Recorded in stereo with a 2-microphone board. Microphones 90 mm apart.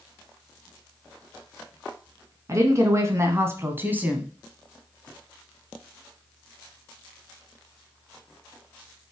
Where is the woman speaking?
35° right (ahead or behind), 1.9 m; by 4.3 s 10° right (ahead or behind), 1.5 m.